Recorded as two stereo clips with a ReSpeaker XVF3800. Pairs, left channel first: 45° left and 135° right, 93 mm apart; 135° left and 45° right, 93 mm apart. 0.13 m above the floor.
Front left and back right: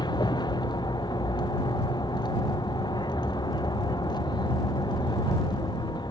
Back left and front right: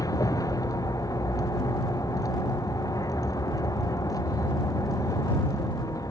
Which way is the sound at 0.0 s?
85° left.